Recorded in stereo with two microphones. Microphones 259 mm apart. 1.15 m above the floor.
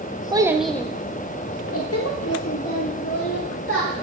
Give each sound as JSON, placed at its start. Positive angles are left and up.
{"t": 0.3, "sound": "a child speaking", "side_deg": -15, "distance_m": 0.6}